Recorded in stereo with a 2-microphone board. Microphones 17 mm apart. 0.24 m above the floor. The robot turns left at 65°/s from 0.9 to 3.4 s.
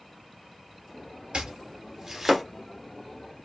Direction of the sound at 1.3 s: 70° right (ahead or behind).